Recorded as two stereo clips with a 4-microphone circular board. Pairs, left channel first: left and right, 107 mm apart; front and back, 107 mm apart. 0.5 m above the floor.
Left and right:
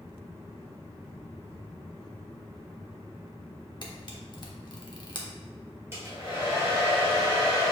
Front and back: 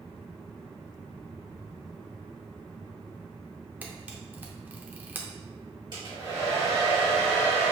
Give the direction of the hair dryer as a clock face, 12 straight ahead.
5 o'clock.